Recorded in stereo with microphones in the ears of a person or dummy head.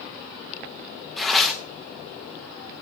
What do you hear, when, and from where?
1.2 s tearing paper: centre (ahead or behind), 0.7 m